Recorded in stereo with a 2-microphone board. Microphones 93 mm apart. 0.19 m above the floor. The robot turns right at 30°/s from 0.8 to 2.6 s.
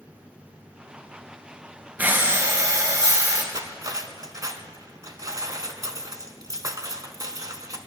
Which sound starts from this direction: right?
Cutlery clinking, at 3.5 s.